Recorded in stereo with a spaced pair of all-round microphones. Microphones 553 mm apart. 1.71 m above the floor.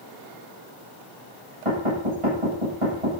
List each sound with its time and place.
1.6 s knocking: 70° right (ahead or behind), 10 m